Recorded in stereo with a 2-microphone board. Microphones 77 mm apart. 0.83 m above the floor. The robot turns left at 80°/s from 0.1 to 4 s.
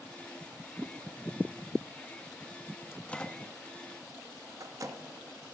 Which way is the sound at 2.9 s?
30° left (ahead or behind).